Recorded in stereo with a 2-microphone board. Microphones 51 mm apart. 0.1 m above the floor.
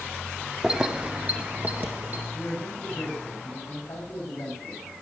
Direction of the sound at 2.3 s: 70° left (ahead or behind).